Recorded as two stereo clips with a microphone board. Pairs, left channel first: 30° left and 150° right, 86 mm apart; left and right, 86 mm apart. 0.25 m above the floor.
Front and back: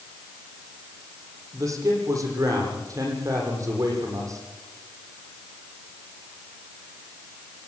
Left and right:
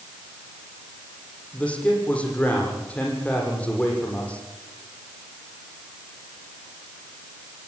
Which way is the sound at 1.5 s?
165° left.